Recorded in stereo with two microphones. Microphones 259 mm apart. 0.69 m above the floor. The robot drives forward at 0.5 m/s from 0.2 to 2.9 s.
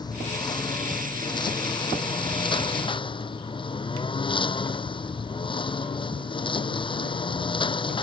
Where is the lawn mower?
15° left (ahead or behind); by 8.0 s 20° left (ahead or behind).